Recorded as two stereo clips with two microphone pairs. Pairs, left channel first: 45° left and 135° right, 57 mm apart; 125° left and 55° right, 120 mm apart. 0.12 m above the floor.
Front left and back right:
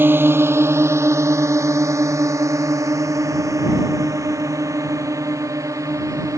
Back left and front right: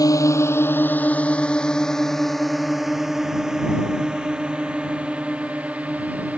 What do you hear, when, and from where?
0.0 s a drone: straight behind; by 6.4 s 130° right